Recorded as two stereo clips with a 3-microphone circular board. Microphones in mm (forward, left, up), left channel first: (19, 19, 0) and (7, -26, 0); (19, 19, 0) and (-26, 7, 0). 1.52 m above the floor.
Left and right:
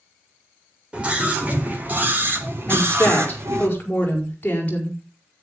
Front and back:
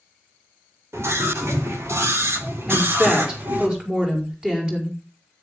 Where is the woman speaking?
125° left, 5.5 m.